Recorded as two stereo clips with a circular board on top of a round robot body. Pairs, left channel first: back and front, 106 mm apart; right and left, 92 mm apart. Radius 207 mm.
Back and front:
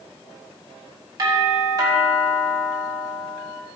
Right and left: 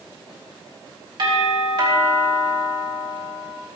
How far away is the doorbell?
About 5.5 m.